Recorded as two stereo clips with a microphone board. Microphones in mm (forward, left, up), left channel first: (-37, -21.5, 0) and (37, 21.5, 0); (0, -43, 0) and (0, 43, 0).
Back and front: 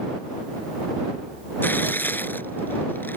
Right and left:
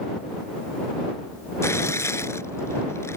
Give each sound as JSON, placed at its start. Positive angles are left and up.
{"t": 1.6, "sound": "tearing paper", "azimuth_deg": -105}